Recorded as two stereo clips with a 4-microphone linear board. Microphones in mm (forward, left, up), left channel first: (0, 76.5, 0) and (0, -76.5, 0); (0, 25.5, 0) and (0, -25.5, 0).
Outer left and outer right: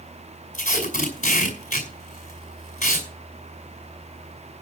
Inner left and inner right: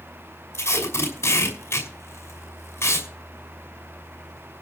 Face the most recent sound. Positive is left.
turn(degrees=55)  # may be behind; listen again after turning